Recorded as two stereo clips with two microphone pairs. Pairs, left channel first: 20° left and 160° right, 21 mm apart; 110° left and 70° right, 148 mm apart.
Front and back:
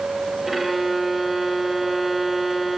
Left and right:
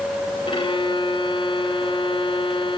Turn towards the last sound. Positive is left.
turn(degrees=115)